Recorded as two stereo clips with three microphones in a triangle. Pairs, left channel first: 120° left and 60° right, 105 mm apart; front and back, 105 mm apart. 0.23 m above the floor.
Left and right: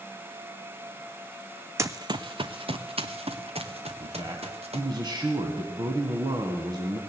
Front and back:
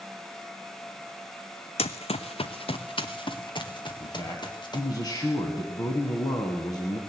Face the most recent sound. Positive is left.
turn(degrees=-35)